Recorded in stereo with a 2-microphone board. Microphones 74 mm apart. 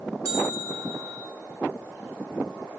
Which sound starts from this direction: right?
A bell, at 0.2 s.